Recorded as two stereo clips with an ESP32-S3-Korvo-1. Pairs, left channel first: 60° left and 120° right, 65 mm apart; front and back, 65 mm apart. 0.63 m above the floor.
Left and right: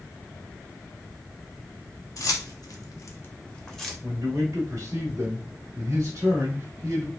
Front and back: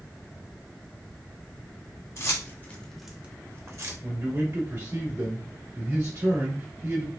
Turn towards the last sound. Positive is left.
turn(degrees=-155)